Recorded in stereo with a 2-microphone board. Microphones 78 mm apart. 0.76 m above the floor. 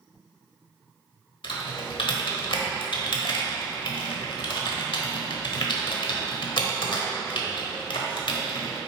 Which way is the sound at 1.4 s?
75° left (ahead or behind).